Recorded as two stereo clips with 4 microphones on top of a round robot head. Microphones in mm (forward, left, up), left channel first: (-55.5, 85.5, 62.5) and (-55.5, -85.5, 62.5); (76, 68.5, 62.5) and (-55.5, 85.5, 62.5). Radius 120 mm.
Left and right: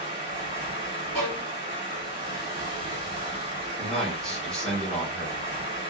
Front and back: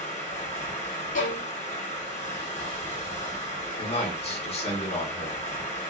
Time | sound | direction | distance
0.0 | running water | 40° right | 1.9 m
1.1 | a violin | 5° left | 0.9 m
3.8 | a man speaking | 5° left | 1.2 m